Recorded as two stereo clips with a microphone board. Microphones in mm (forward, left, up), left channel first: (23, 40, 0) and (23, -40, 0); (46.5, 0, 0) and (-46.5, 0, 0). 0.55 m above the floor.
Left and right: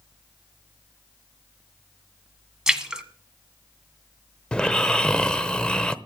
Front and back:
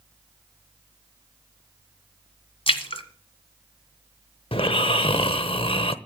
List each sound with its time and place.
2.7 s a splash: 10° right, 1.5 m
4.5 s snoring: 10° left, 0.8 m